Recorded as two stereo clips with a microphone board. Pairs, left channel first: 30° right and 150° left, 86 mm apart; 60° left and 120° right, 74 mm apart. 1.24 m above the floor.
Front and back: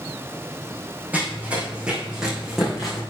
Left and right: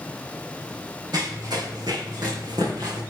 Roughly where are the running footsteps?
Behind right.